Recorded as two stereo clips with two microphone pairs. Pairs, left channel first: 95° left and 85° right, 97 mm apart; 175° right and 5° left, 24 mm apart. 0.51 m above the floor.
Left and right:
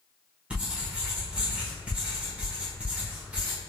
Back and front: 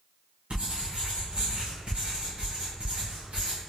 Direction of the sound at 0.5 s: 10° right.